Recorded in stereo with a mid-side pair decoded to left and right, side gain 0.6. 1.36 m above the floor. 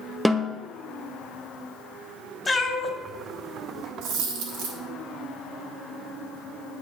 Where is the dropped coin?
70° right, 3 m.